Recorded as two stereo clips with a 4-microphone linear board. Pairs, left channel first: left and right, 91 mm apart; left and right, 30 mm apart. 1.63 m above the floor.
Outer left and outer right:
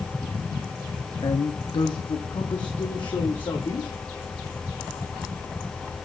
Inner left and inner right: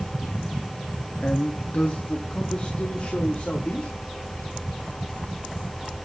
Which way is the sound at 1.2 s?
55° left (ahead or behind).